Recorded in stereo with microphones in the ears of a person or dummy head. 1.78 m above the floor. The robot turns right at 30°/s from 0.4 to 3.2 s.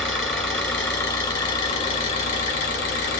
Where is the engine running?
5° left, 1.3 m; by 3.2 s 90° left, 1.3 m.